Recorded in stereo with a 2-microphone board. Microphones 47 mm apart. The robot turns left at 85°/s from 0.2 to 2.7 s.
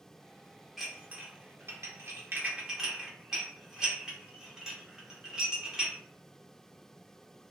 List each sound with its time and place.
0.8 s dishes clattering: centre (ahead or behind), 0.8 m; by 6.0 s 15° right (ahead or behind), 0.8 m